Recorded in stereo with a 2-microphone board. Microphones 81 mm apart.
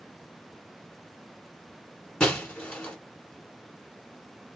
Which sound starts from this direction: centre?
Breaking glass, at 2.2 s.